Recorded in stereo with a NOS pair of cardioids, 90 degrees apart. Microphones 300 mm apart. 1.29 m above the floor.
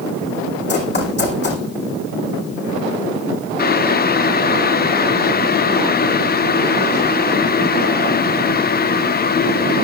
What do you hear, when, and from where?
0.7 s running footsteps: 35° left, 4.5 m
3.6 s boiling: 30° left, 0.8 m